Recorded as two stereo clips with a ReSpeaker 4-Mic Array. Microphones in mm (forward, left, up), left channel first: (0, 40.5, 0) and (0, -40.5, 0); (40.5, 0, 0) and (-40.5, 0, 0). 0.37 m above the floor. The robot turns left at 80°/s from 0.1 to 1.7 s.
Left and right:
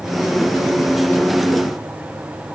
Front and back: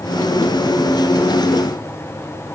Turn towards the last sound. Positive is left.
No sound to turn to.